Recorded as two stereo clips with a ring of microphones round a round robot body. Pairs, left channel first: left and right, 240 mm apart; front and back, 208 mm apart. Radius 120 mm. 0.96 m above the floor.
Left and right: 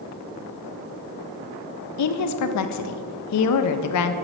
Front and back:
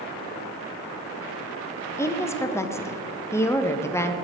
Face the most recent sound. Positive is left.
turn(degrees=80)